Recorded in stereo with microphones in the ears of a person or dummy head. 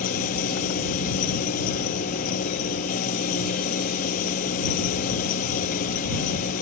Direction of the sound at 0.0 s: 45° left (ahead or behind).